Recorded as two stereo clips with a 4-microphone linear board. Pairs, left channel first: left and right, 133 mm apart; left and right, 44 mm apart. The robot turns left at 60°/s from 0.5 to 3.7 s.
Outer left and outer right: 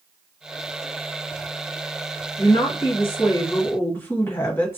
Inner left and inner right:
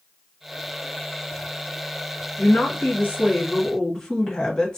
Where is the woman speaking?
100° left, 1.4 m; by 4.8 s 20° left, 1.4 m.